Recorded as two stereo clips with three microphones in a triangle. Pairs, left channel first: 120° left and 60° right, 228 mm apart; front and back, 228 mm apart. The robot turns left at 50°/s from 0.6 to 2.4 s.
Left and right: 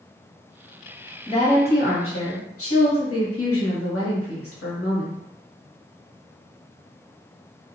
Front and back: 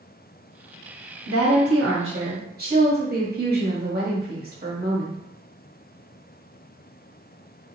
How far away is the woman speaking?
About 1.0 m.